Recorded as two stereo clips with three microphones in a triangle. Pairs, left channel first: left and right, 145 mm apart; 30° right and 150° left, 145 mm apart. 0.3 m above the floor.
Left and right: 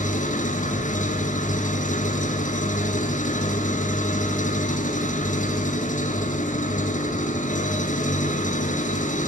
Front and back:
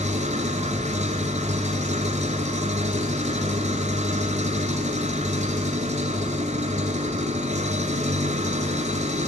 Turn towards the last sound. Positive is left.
turn(degrees=115)